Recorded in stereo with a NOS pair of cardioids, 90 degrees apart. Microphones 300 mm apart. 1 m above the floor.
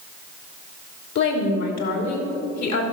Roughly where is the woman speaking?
Ahead left.